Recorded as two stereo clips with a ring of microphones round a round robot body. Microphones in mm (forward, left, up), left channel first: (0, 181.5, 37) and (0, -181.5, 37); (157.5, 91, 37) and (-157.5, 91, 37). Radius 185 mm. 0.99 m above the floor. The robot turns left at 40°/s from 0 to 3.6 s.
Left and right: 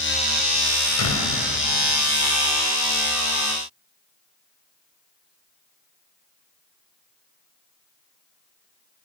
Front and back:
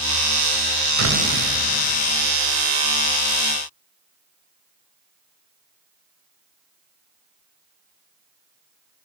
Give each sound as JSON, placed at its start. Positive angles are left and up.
{"t": 1.0, "sound": "a door slam", "azimuth_deg": 140, "distance_m": 5.0}